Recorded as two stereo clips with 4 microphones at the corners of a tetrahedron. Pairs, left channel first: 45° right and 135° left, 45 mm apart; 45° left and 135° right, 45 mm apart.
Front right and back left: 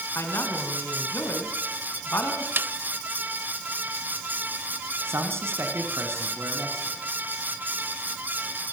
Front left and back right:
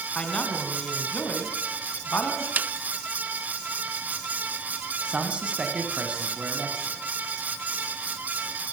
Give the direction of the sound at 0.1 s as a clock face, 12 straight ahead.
1 o'clock.